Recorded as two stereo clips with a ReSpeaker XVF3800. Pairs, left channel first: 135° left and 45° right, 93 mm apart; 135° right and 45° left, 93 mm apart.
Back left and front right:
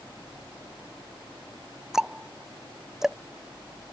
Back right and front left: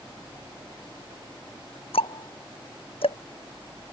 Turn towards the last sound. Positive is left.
turn(degrees=-130)